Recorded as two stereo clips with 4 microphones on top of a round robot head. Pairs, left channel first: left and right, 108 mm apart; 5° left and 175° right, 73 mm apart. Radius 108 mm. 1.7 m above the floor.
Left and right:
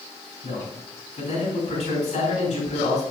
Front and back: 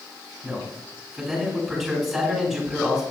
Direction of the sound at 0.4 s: 100° left.